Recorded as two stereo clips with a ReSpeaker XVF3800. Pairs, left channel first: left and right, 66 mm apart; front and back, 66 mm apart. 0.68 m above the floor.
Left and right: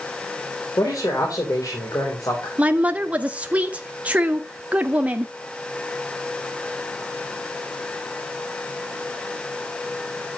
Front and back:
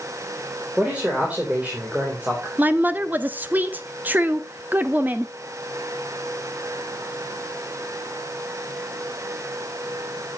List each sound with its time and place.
0.8 s a man speaking: 110° left, 3 m
2.6 s a woman speaking: 140° right, 0.6 m